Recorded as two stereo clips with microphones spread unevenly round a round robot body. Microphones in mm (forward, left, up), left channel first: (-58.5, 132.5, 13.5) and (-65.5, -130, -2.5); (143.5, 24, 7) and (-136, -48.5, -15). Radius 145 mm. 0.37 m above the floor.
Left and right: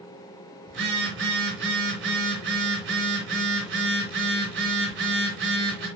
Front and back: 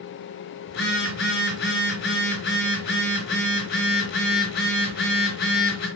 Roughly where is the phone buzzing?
Ahead right.